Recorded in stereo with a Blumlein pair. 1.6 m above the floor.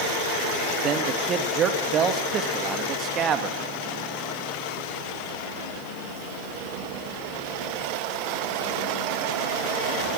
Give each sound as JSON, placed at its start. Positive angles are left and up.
{"t": 0.8, "sound": "a man speaking", "azimuth_deg": -30, "distance_m": 2.5}